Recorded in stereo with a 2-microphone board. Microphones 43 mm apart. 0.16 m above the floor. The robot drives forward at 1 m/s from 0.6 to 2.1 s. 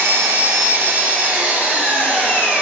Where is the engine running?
65° right (ahead or behind), 1.1 m; by 2.6 s 30° right (ahead or behind), 2 m.